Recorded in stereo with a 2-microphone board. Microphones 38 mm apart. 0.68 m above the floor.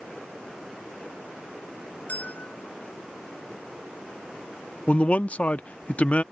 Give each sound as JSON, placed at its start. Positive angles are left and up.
{"t": 2.1, "sound": "a bell", "side_deg": 45}
{"t": 4.9, "sound": "a man speaking", "side_deg": 40}